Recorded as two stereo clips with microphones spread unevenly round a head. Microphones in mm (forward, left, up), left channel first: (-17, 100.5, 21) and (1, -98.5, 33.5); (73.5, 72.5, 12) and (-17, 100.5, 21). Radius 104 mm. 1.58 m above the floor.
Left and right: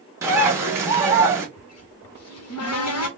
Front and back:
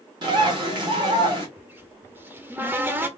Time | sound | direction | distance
0.2 | a bird | 155° right | 1.3 m
1.6 | a cupboard door | 95° left | 1.2 m